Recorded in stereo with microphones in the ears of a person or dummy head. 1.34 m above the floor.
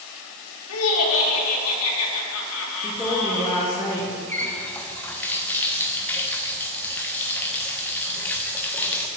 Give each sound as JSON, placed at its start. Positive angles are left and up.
{"t": 0.7, "sound": "laughter", "side_deg": 80, "distance_m": 1.6}
{"t": 2.8, "sound": "a woman speaking", "side_deg": 10, "distance_m": 1.3}
{"t": 4.3, "sound": "a running tap", "side_deg": 10, "distance_m": 0.7}